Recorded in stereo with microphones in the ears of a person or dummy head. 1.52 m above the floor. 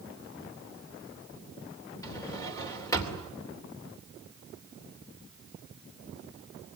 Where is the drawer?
15° left (ahead or behind), 3 m.